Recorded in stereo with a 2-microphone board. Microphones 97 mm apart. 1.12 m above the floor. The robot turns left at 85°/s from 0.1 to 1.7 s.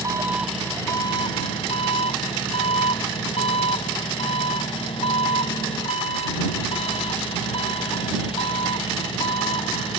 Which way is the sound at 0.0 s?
145° right.